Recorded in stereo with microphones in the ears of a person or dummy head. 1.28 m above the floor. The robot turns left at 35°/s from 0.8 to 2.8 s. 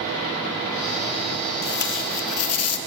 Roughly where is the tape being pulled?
Behind left.